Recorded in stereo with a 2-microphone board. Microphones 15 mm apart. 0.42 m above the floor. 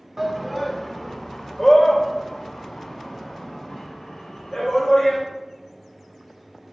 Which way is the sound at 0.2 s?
20° right (ahead or behind).